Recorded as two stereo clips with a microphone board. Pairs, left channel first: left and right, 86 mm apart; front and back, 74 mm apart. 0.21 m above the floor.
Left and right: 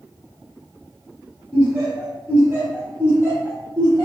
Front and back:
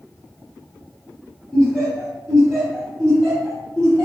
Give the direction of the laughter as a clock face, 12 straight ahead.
3 o'clock.